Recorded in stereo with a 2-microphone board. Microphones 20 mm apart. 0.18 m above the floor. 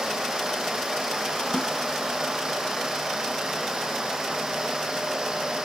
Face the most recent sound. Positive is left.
turn(degrees=25)  # may be behind; listen again after turning